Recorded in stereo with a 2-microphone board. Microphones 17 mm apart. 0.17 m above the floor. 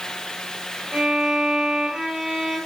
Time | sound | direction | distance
0.9 | a violin | 50° right (ahead or behind) | 8 m